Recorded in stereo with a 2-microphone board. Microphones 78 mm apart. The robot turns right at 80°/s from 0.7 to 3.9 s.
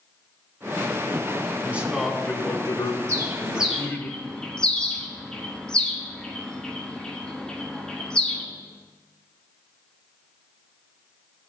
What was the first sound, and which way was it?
A man speaking, 25° right.